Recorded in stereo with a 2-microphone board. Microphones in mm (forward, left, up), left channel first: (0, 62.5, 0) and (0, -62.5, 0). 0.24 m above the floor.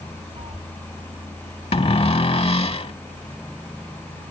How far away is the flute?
No flute in this recording.